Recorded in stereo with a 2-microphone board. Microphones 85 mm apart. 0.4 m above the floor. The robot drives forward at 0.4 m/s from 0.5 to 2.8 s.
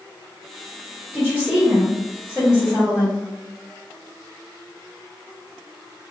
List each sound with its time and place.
1.1 s a woman speaking: 20° right (ahead or behind), 1.7 m; by 3.2 s 15° right (ahead or behind), 2 m